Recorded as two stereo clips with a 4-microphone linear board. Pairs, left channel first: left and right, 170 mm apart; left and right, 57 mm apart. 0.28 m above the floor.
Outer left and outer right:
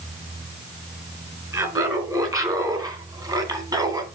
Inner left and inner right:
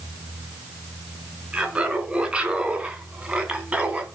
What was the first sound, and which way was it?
Laughter, 20° right (ahead or behind).